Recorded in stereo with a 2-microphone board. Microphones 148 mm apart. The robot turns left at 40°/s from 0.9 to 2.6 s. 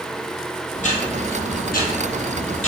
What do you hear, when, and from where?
0.8 s ticking: 125° left, 2.0 m; by 2.7 s 55° left, 2.0 m